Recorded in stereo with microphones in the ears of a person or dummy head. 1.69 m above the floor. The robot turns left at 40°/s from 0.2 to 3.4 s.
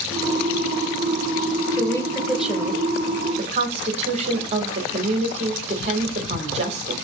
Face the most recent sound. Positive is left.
turn(degrees=-40)